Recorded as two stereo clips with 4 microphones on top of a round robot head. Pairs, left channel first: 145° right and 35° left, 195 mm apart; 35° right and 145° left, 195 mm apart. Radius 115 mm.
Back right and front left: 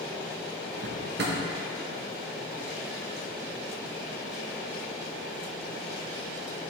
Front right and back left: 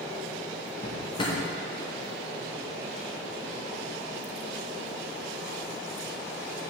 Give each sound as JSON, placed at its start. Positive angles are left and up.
{"t": 0.8, "sound": "a drawer", "azimuth_deg": 20, "distance_m": 0.7}